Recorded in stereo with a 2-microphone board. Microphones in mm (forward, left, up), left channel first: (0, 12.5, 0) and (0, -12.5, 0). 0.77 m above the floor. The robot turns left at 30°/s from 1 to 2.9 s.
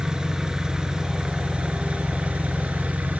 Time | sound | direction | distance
0.0 | an engine running | 30° right | 2.5 m